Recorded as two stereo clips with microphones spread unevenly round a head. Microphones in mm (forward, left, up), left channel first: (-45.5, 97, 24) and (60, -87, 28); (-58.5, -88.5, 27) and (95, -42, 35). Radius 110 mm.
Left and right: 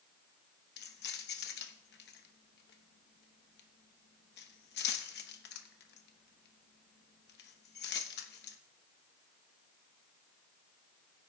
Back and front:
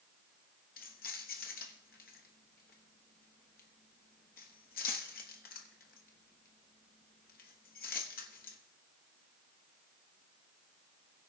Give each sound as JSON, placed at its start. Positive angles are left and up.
{"t": 0.8, "sound": "keys jangling", "azimuth_deg": 155, "distance_m": 1.1}